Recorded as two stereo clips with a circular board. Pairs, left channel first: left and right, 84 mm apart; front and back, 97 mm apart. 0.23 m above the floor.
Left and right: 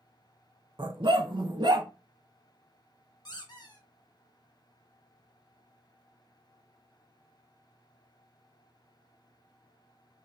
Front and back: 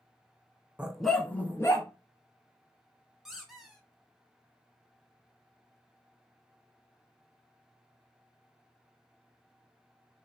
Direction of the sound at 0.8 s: 105° right.